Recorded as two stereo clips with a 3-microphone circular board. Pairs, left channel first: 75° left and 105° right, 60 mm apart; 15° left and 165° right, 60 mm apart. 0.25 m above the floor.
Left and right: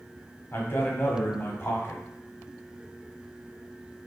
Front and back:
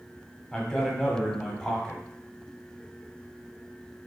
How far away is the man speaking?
About 1.1 m.